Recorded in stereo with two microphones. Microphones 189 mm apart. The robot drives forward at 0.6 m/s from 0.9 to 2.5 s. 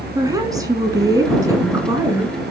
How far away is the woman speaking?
About 1.9 m.